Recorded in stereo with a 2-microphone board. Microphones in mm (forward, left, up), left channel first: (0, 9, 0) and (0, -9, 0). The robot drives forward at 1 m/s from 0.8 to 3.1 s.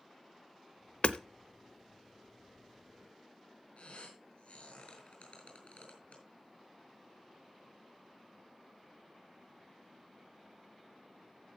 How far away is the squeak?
About 4 m.